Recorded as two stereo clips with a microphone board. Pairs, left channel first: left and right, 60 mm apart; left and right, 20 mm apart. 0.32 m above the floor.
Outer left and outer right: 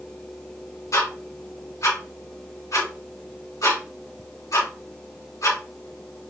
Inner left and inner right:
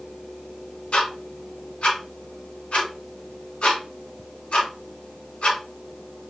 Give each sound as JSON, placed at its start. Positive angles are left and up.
{"t": 0.9, "sound": "ticking", "side_deg": 70, "distance_m": 3.0}